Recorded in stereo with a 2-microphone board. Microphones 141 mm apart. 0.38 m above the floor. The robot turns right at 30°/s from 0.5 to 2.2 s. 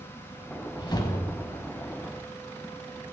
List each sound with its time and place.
0.8 s a whoosh: 145° left, 0.9 m; by 2.0 s straight behind, 0.9 m